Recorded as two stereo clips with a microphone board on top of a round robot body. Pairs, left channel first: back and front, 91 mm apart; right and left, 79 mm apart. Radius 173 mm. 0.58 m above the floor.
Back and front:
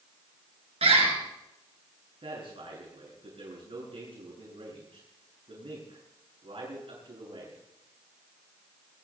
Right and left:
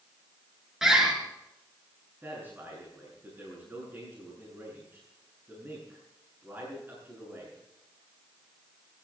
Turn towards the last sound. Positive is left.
turn(degrees=20)